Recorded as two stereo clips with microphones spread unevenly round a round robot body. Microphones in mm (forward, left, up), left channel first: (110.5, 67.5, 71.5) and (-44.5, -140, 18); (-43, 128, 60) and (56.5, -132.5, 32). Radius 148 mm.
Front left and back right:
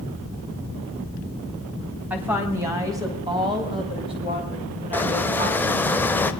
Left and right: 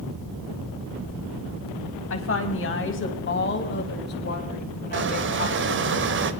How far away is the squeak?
About 1.4 m.